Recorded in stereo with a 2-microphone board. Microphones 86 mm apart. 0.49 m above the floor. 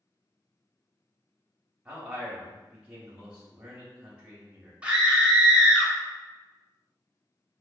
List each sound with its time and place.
1.9 s a man speaking: 15° right (ahead or behind), 0.8 m
4.8 s a scream: 15° right (ahead or behind), 0.6 m